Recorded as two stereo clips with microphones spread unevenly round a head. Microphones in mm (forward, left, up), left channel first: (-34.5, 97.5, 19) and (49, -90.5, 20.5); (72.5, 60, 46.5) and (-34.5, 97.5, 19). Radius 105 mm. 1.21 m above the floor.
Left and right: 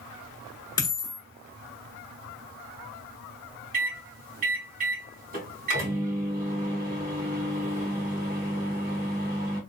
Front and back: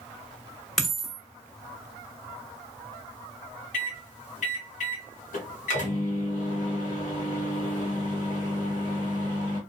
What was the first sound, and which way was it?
A dropped coin, 50° left.